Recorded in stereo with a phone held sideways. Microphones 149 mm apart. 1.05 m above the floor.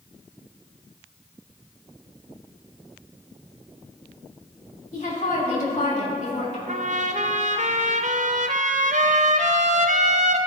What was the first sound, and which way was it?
A woman speaking, 50° left (ahead or behind).